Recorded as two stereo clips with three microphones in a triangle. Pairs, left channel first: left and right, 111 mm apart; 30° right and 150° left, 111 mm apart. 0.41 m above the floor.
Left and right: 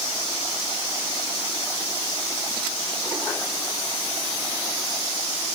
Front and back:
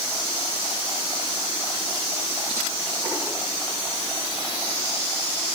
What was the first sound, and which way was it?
Only background noise.